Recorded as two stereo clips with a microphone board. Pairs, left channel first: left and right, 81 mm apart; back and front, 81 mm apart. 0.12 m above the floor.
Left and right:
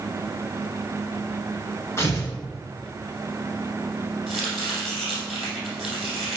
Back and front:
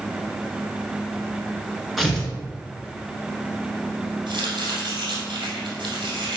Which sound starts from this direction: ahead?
Chopping, at 4.3 s.